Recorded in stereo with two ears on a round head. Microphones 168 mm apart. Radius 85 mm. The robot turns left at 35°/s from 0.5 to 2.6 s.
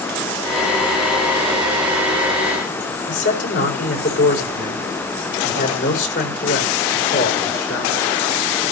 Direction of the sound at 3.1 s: 70° left (ahead or behind).